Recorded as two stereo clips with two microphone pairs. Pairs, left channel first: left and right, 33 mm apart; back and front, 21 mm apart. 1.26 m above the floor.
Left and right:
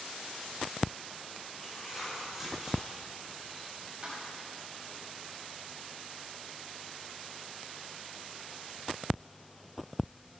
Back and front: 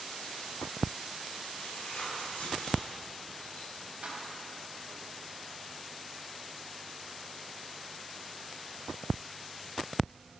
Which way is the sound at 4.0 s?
30° right.